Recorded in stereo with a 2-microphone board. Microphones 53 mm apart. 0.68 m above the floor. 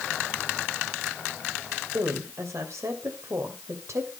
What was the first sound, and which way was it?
A woman speaking, 65° right (ahead or behind).